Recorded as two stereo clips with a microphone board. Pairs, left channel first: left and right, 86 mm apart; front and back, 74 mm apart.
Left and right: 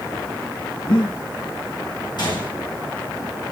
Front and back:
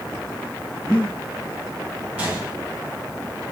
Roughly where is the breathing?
Left.